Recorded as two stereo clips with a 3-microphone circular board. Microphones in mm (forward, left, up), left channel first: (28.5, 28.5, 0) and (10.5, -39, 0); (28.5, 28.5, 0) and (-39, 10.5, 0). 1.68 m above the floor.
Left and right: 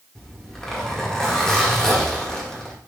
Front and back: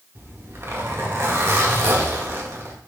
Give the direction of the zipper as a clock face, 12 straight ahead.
7 o'clock.